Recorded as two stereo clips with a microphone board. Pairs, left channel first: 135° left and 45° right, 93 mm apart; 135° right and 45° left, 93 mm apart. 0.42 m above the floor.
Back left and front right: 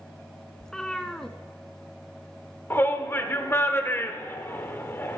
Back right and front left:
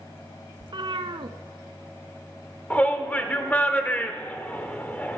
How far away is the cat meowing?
About 0.5 m.